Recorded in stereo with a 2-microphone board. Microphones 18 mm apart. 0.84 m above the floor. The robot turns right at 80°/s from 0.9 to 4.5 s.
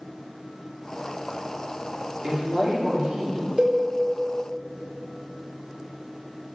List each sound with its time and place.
2.2 s a woman speaking: 135° right, 2 m; by 3.5 s 40° right, 2 m
3.6 s a cowbell: 55° right (ahead or behind), 1.0 m; by 3.8 s 65° right (ahead or behind), 1.0 m